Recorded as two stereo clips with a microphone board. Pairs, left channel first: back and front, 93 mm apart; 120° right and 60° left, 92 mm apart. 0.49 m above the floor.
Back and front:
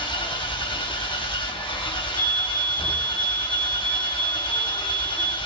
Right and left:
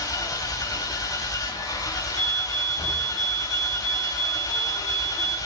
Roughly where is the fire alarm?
Ahead left.